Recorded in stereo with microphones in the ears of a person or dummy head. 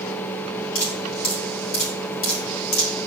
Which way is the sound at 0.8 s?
60° left (ahead or behind).